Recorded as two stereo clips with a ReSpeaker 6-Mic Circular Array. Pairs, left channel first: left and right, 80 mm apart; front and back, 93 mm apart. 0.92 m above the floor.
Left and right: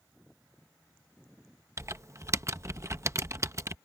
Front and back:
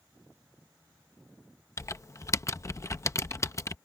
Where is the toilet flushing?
No toilet flushing in this recording.